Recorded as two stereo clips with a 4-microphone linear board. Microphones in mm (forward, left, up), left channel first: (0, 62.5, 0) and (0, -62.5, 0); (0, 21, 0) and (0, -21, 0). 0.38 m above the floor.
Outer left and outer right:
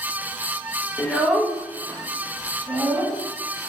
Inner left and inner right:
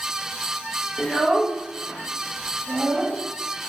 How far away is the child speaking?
About 0.6 m.